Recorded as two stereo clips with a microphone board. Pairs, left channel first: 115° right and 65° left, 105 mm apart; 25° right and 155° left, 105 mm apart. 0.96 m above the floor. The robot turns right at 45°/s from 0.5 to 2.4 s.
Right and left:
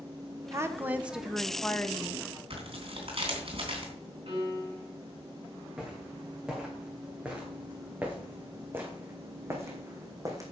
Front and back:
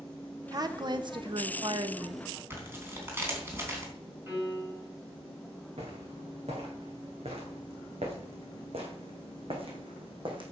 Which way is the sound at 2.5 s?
90° left.